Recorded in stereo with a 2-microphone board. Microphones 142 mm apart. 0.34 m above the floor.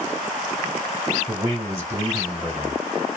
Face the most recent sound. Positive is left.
turn(degrees=-20)  # may be behind; listen again after turning